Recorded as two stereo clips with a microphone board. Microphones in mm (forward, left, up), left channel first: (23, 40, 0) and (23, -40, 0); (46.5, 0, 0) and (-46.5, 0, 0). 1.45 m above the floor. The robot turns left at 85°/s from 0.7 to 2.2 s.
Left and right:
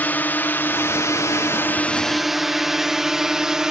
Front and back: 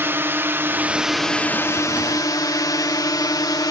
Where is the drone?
140° left; by 3.7 s 10° right.